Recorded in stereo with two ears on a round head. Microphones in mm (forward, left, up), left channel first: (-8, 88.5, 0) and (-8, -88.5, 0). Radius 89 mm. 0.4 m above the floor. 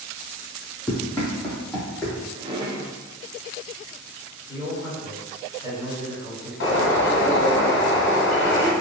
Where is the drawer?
20° right (ahead or behind), 0.5 m.